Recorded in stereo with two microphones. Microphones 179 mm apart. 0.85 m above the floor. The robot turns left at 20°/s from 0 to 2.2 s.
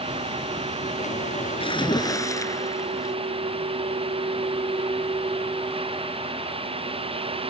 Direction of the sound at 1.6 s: 30° left (ahead or behind).